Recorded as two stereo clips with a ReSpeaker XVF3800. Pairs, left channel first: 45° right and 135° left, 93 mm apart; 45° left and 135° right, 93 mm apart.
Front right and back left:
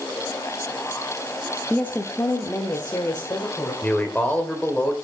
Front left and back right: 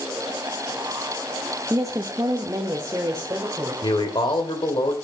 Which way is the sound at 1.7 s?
110° right.